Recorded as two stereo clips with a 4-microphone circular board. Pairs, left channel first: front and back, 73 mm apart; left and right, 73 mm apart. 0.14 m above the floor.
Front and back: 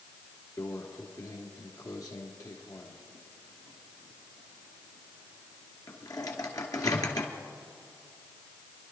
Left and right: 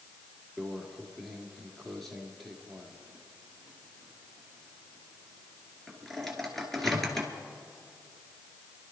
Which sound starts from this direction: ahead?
A microwave, at 0.6 s.